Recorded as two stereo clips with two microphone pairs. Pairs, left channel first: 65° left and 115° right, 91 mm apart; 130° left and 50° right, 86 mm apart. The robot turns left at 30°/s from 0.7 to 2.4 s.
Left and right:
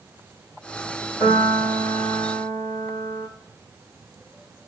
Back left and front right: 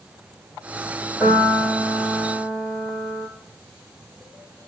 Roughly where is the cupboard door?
No cupboard door in this recording.